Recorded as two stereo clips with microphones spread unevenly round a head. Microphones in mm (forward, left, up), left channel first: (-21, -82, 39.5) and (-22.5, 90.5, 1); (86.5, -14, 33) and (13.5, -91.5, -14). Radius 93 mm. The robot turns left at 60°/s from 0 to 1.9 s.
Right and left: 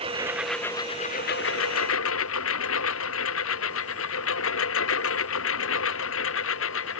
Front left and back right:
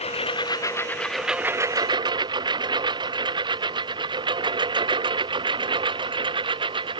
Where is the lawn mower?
30° left; by 7.0 s 95° right.